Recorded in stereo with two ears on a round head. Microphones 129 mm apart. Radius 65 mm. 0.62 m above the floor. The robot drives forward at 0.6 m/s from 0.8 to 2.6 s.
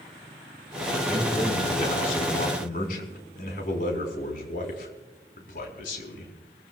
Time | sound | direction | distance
1.1 | a man speaking | 50° left (ahead or behind) | 5 m